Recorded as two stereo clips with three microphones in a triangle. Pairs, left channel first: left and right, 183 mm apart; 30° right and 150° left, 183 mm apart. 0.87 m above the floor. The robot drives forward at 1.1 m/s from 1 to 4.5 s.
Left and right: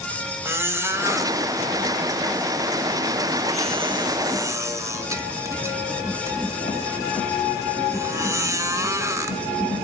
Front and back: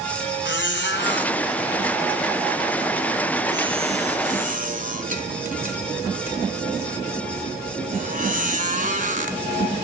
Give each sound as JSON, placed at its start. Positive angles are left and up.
{"t": 0.5, "sound": "a squeak", "azimuth_deg": -15, "distance_m": 2.5}